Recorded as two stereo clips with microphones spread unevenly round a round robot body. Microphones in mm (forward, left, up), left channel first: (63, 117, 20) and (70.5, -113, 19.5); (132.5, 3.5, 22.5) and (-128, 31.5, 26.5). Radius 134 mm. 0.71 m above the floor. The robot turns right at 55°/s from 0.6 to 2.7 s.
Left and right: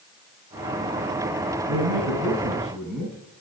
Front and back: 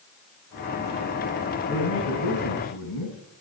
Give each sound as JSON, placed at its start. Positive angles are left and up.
{"t": 1.7, "sound": "a man speaking", "azimuth_deg": -55, "distance_m": 7.5}